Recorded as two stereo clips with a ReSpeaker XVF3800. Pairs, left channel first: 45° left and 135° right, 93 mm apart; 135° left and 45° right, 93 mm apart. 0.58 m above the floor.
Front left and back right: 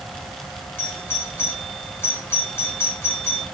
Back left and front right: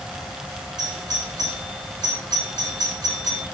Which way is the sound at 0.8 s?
15° right.